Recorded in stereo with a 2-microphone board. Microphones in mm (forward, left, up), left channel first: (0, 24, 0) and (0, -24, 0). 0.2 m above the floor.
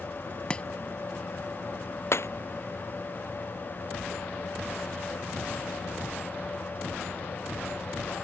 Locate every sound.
0.5 s chopping: 25° left (ahead or behind)
2.1 s breaking glass: 65° left (ahead or behind)